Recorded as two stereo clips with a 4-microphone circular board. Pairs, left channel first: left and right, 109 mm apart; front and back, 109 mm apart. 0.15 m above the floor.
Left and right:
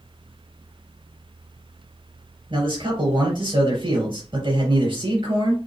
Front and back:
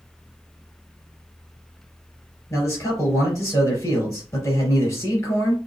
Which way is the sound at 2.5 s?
60° right.